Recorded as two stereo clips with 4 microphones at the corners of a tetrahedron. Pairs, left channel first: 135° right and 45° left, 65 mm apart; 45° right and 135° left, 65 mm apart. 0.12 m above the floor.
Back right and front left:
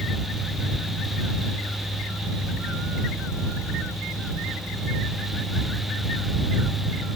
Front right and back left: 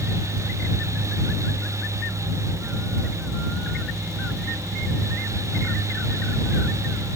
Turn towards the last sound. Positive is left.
No sound to turn to.